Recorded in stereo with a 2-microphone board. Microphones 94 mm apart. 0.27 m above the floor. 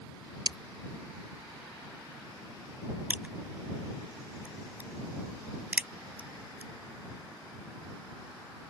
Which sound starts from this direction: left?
Breaking glass, at 0.5 s.